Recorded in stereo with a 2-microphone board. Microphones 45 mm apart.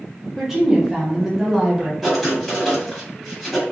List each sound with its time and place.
0.4 s a woman speaking: 15° right (ahead or behind), 1.0 m
2.0 s writing: centre (ahead or behind), 1.3 m